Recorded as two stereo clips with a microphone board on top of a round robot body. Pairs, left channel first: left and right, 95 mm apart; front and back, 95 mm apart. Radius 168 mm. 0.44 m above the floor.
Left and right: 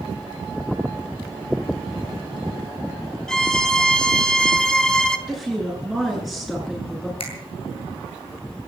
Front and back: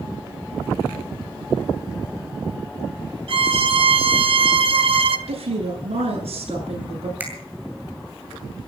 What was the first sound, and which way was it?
A violin, 170° left.